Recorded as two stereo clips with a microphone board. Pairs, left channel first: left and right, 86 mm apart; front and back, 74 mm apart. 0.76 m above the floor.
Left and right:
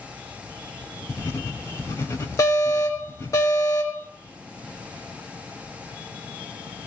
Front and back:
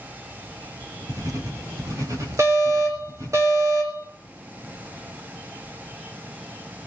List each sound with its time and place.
1.1 s writing: 150° left, 4 m
2.4 s an alarm: 140° left, 3.5 m